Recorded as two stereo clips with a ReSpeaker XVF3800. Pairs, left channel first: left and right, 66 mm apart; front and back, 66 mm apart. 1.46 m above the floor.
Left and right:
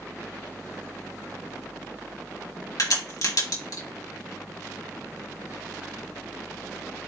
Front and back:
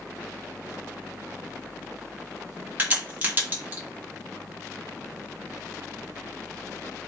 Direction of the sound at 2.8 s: 115° left.